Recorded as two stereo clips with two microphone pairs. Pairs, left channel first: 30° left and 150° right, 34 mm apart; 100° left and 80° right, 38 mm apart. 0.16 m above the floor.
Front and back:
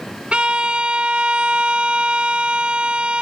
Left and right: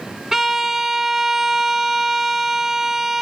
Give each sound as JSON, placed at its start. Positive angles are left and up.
{"t": 0.3, "sound": "a violin", "azimuth_deg": -155, "distance_m": 0.5}